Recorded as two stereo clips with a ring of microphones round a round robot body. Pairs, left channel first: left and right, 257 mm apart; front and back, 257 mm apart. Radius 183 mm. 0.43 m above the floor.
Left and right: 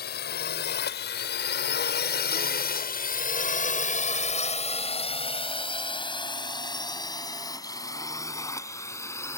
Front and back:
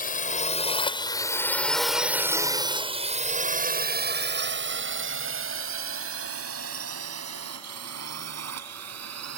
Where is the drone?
45° left; by 9.4 s 170° left.